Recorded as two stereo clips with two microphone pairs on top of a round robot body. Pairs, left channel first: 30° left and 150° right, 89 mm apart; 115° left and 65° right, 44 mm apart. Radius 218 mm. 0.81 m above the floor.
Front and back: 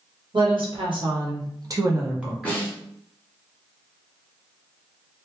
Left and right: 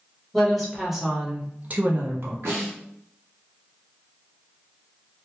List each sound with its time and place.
0.3 s a woman speaking: 160° right, 1.3 m; by 2.5 s 55° right, 0.9 m
2.5 s a snare drum: 45° right, 0.7 m